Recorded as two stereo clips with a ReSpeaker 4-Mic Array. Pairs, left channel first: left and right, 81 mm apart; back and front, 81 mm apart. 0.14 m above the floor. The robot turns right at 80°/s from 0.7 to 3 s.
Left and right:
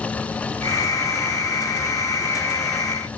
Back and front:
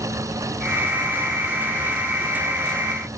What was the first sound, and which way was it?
Only background noise.